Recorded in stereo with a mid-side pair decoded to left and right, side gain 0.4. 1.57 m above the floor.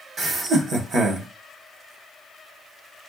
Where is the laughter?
65° right, 1.4 m.